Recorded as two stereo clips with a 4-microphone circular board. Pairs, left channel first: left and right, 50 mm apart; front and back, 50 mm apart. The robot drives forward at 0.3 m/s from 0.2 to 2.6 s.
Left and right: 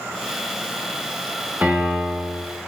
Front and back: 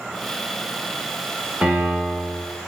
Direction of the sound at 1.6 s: 130° right.